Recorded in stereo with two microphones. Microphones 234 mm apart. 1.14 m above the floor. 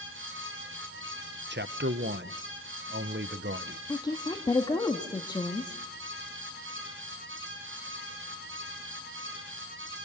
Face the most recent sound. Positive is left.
turn(degrees=15)  # may be behind; listen again after turning